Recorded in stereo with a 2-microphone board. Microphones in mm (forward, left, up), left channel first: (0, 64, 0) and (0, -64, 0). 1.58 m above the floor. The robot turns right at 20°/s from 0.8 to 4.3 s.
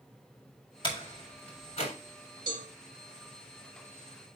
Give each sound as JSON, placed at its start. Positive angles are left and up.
{"t": 0.8, "sound": "a door slam", "side_deg": 40, "distance_m": 3.5}
{"t": 2.5, "sound": "a cowbell", "side_deg": -40, "distance_m": 2.5}